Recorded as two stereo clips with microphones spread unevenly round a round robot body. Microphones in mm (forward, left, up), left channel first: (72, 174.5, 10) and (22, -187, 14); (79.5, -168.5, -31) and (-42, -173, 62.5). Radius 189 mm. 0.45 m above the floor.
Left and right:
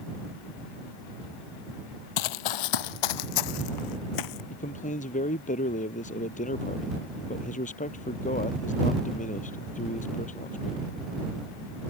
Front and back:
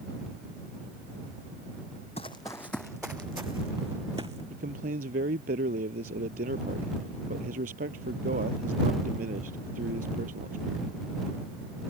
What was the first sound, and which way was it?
Running footsteps, 90° left.